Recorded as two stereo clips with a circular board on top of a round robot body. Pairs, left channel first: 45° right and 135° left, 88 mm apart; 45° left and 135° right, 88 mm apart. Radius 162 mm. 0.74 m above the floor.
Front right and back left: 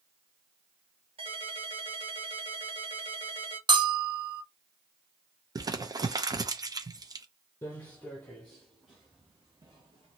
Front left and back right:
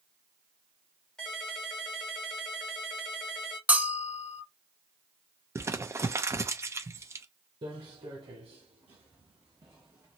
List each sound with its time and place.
1.2 s a ringtone: 125° left, 1.6 m
3.7 s a bell: 155° left, 0.9 m
5.5 s crumpling: 170° left, 0.8 m
7.6 s footsteps: 110° right, 1.3 m; by 10.2 s 155° left, 0.9 m